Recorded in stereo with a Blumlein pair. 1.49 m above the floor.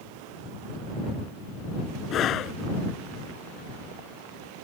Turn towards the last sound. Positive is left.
turn(degrees=30)